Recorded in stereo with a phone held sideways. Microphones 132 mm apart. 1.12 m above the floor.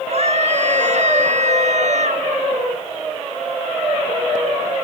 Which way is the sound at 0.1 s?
60° right (ahead or behind).